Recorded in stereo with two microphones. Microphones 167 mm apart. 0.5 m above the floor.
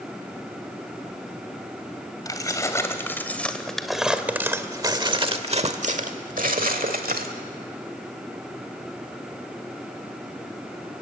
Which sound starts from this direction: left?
Keys jangling, at 2.2 s.